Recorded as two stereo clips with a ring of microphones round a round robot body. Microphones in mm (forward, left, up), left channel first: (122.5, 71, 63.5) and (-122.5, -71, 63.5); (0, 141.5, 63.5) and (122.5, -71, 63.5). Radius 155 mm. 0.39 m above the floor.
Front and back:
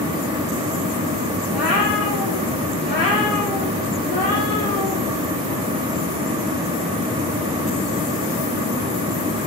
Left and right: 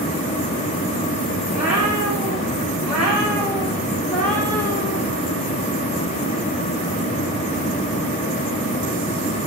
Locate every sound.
1.5 s a cat meowing: 20° left, 8 m; by 5.0 s 45° left, 4 m